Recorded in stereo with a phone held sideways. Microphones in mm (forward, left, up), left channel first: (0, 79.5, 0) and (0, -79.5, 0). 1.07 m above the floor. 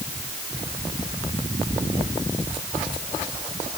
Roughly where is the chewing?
Right.